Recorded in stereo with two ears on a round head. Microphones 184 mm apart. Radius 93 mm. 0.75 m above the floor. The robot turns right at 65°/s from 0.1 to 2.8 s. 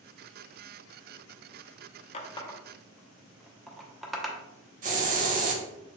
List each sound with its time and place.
2.1 s a running tap: 35° left (ahead or behind), 0.5 m; by 4.4 s centre (ahead or behind), 0.5 m
4.8 s a hiss: 40° right (ahead or behind), 0.7 m